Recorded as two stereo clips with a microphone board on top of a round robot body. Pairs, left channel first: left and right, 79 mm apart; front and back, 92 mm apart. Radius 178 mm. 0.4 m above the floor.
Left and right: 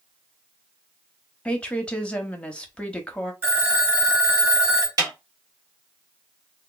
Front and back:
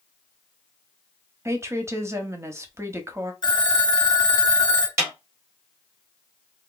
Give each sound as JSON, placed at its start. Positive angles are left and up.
{"t": 1.4, "sound": "a woman speaking", "azimuth_deg": 155, "distance_m": 1.0}
{"t": 3.4, "sound": "a phone ringing", "azimuth_deg": -35, "distance_m": 1.2}
{"t": 5.0, "sound": "a snare drum", "azimuth_deg": -125, "distance_m": 1.9}